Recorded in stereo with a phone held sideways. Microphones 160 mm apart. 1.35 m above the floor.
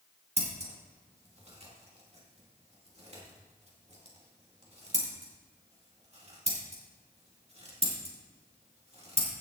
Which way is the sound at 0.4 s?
40° right (ahead or behind).